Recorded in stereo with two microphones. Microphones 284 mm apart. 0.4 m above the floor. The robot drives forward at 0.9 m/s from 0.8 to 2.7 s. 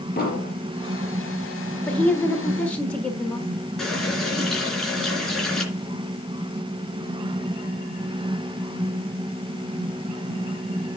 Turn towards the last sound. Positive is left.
turn(degrees=0)  # may be behind; listen again after turning